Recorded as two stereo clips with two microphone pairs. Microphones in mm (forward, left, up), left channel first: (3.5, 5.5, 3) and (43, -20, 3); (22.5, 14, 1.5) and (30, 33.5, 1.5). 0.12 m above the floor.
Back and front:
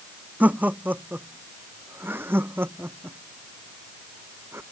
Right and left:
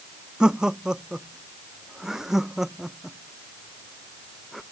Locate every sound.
0.4 s laughter: 20° left; by 4.6 s 25° right